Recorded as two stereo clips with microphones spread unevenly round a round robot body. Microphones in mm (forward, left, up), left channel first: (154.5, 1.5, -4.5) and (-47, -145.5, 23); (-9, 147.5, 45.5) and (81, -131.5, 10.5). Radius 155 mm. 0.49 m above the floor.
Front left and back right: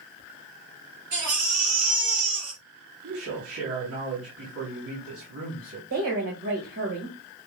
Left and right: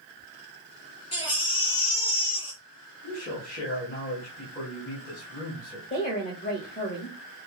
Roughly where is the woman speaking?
Behind.